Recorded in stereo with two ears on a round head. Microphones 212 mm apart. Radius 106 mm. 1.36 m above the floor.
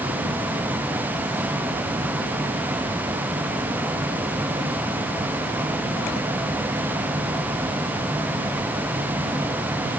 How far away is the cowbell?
I don't hear a cowbell.